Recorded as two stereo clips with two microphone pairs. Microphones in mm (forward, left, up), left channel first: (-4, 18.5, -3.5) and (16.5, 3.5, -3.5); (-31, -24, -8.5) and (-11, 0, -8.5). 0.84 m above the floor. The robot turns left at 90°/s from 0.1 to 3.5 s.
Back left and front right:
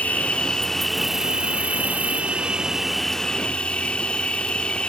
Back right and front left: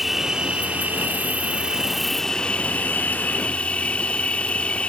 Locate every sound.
0.0 s an insect: 135° left; by 4.9 s 175° right